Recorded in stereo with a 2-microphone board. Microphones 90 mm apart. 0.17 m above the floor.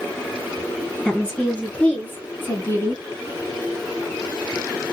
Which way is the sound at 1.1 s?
15° left (ahead or behind).